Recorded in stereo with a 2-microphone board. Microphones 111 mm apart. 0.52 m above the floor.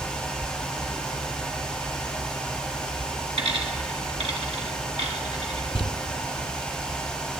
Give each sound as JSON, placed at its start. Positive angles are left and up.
{"t": 3.4, "sound": "a dropped coin", "side_deg": -70, "distance_m": 1.8}
{"t": 5.8, "sound": "crumpling", "side_deg": 50, "distance_m": 0.6}